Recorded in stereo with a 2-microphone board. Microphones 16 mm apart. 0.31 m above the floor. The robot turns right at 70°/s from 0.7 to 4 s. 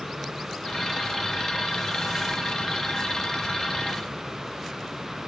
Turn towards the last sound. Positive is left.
No sound to turn to.